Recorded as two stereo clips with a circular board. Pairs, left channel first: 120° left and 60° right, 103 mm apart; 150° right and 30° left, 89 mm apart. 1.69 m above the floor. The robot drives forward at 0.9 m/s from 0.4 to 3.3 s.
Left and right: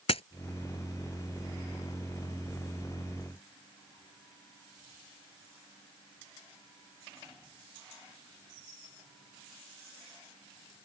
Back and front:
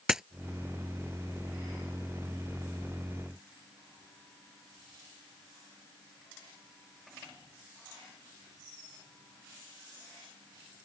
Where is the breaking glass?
115° left.